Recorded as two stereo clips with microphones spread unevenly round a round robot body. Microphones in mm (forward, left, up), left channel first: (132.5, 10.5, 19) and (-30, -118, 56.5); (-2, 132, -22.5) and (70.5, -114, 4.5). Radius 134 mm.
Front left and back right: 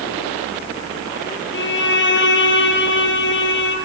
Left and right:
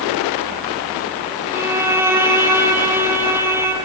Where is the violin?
5° left, 6 m.